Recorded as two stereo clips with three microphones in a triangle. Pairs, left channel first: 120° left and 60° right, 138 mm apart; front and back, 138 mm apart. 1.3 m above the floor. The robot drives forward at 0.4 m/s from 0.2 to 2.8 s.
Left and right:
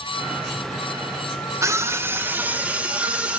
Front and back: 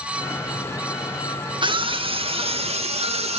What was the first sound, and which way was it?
A scream, 130° right.